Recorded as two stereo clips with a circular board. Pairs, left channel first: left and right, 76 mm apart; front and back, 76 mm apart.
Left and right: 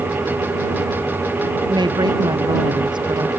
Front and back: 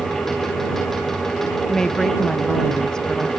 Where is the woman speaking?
85° right.